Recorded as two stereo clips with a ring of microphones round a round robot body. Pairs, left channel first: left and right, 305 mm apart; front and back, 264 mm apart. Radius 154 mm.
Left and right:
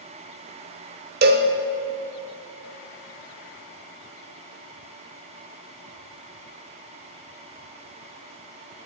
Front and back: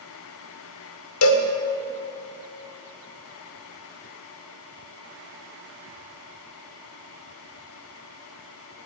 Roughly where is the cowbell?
Ahead right.